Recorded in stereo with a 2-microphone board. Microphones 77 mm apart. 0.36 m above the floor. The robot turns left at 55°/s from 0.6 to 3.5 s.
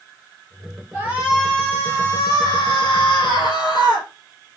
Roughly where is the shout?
Behind.